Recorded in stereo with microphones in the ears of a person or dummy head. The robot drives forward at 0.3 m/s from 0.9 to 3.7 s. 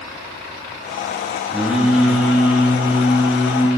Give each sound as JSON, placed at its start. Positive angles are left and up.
{"t": 1.5, "sound": "singing", "side_deg": -5, "distance_m": 2.5}